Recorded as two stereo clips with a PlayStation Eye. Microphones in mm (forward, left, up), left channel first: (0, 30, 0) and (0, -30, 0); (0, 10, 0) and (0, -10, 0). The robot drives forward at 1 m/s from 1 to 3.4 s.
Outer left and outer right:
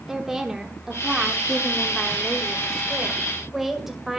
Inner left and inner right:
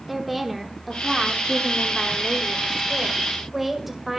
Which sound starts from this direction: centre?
A woman speaking, at 0.1 s.